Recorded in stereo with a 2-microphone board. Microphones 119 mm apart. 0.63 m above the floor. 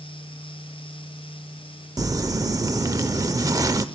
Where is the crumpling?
30° right (ahead or behind), 0.6 m.